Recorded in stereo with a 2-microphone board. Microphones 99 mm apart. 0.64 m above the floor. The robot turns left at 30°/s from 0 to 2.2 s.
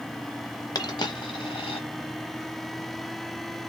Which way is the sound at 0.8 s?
40° left (ahead or behind).